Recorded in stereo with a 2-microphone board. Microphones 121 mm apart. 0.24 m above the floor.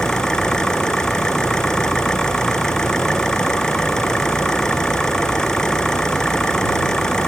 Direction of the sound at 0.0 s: 5° left (ahead or behind).